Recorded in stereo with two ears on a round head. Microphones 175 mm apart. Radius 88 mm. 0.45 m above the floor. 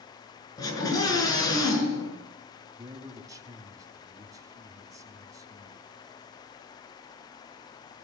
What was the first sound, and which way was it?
A scream, 20° left (ahead or behind).